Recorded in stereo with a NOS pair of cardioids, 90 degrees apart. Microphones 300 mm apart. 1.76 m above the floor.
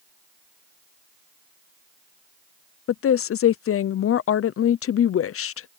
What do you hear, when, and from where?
2.9 s a woman speaking: 50° left